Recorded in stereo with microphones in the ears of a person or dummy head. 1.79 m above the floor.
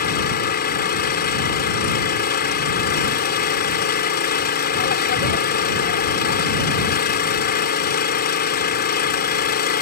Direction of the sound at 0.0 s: 50° left (ahead or behind).